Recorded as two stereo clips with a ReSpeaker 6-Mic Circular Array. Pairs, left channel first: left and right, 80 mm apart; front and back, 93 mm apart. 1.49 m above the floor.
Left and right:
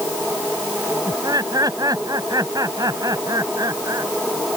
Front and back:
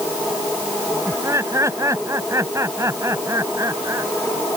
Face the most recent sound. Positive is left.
turn(degrees=-125)